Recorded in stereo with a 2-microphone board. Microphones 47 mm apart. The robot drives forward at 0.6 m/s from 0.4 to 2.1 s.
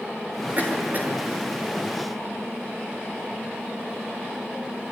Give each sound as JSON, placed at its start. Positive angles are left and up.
{"t": 0.6, "sound": "a cough", "side_deg": -40, "distance_m": 6.0}